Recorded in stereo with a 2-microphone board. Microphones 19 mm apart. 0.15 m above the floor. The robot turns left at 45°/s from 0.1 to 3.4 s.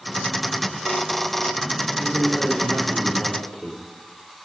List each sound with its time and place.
2.0 s a man speaking: 150° left, 7.5 m; by 3.8 s 85° left, 7.5 m